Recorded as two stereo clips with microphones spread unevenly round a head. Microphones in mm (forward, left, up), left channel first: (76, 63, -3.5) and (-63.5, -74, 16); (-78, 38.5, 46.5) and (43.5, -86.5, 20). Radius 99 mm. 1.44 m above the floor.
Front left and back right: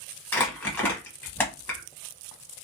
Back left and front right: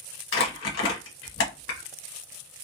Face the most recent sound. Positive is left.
turn(degrees=130)